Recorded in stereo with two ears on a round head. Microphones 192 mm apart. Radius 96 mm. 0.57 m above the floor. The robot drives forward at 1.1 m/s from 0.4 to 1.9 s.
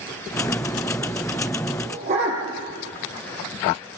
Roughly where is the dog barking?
Right.